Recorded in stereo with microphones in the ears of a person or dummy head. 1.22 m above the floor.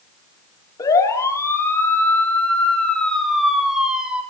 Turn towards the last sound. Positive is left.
turn(degrees=-5)  # may be behind; listen again after turning